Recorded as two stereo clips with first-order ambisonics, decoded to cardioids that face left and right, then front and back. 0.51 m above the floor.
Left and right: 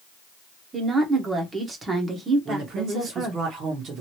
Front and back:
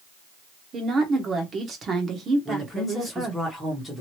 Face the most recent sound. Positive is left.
turn(degrees=-80)